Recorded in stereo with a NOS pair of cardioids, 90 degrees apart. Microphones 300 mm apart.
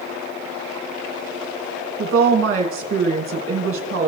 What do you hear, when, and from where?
2.0 s a woman speaking: 45° right, 2 m